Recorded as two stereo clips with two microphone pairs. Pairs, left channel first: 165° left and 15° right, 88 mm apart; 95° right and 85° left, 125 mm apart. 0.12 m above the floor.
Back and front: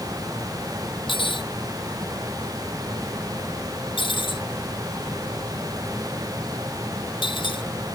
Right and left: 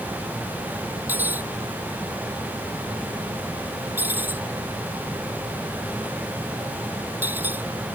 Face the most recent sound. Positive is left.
turn(degrees=160)